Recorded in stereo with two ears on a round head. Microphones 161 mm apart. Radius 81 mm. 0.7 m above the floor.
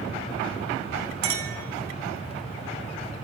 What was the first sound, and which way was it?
A clink, 85° right.